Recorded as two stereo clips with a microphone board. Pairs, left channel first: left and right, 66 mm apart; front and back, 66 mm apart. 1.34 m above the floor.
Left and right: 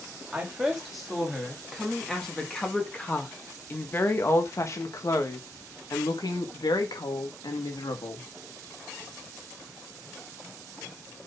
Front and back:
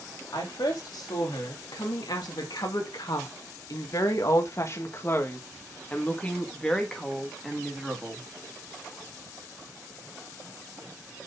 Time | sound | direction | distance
0.3 | a woman speaking | 10° right | 3 m